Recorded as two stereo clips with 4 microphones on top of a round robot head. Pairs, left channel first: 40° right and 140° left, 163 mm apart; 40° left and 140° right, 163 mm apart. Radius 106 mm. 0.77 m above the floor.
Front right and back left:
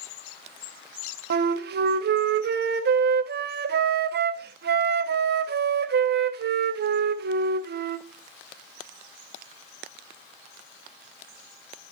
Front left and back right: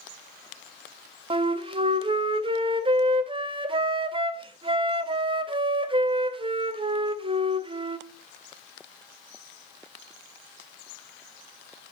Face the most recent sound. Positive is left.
turn(degrees=160)